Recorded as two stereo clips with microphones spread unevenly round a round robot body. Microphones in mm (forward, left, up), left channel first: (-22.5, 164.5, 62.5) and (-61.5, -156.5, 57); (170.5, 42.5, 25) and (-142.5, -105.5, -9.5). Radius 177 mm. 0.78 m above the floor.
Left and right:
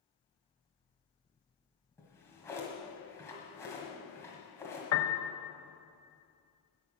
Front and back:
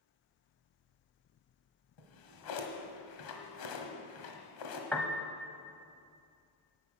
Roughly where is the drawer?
Ahead.